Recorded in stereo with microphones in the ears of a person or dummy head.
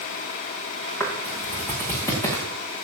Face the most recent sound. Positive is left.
turn(degrees=20)  # may be behind; listen again after turning